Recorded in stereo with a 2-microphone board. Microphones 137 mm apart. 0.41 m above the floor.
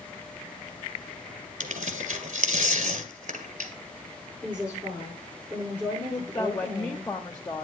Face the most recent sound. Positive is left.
turn(degrees=25)  # may be behind; listen again after turning